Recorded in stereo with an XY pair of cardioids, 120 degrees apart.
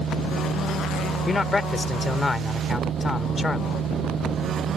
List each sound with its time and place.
0.0 s a machine running: 55° right
1.3 s a man speaking: 20° left